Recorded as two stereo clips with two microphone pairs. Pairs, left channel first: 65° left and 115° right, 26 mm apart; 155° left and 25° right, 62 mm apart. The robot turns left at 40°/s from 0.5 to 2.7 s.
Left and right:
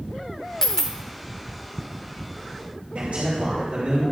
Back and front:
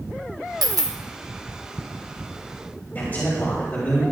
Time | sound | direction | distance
0.6 | a dropped coin | 10° right | 0.9 m
3.0 | a man speaking | 145° right | 3 m